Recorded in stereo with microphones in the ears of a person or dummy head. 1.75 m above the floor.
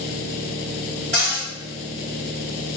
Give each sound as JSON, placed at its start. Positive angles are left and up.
{"t": 1.1, "sound": "a cupboard door", "side_deg": -30, "distance_m": 1.5}